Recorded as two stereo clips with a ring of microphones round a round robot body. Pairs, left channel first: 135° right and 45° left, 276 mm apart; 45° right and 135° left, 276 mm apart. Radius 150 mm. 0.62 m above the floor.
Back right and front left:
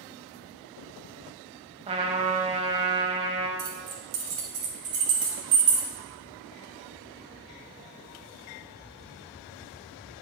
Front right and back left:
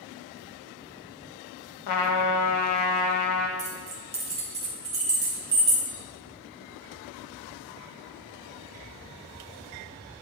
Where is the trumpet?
25° right, 0.9 m.